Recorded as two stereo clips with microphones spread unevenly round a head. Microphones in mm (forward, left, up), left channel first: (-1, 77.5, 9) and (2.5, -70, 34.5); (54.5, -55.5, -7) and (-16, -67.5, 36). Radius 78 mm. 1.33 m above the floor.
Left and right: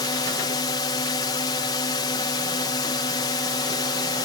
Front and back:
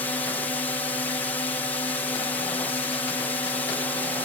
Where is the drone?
40° left.